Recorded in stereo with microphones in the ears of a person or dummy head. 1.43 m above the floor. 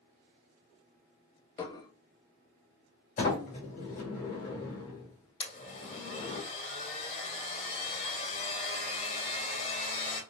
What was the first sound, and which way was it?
Dishes clattering, 25° left (ahead or behind).